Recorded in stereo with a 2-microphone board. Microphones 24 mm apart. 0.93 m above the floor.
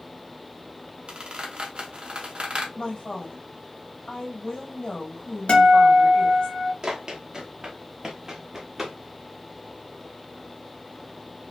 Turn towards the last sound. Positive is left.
turn(degrees=-20)  # may be behind; listen again after turning